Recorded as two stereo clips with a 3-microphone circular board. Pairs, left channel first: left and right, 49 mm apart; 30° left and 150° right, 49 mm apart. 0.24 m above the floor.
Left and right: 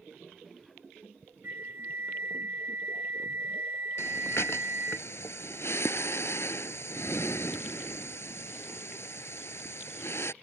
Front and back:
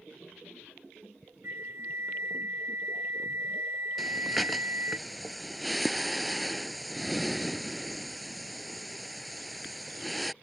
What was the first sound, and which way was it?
A flute, 125° right.